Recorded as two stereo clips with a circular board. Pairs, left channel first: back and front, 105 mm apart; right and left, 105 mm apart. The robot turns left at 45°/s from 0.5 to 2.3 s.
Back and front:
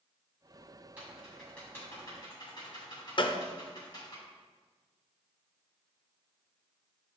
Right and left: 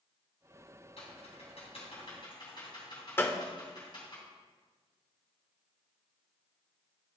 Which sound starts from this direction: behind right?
A gunshot, at 3.2 s.